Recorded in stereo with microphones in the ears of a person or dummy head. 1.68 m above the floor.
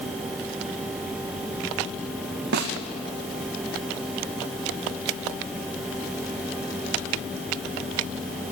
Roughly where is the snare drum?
Right.